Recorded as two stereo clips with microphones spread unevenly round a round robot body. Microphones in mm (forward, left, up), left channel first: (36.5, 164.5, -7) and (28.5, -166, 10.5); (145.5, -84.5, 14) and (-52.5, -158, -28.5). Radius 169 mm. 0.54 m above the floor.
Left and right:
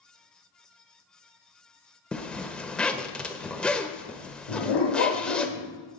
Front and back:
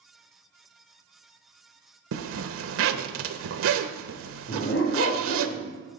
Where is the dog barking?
80° left, 6 m.